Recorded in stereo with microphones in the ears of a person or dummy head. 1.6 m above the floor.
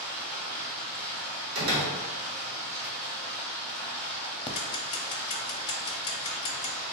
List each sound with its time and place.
0.0 s running water: 35° right (ahead or behind), 0.9 m
1.6 s a door slam: 75° right (ahead or behind), 1.4 m
4.5 s ticking: 30° left (ahead or behind), 0.5 m